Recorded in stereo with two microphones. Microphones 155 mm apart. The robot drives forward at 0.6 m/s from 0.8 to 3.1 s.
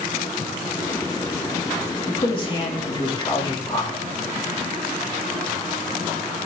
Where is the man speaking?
35° left (ahead or behind), 3 m; by 4.0 s 30° left (ahead or behind), 3.5 m.